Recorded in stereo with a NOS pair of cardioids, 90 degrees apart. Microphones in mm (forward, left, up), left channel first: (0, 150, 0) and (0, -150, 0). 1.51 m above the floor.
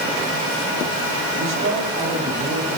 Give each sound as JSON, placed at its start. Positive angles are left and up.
{"t": 1.4, "sound": "a woman speaking", "azimuth_deg": -60, "distance_m": 4.5}